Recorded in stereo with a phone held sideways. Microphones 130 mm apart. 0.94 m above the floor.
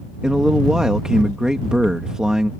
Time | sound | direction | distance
0.2 | a man speaking | 5° right (ahead or behind) | ?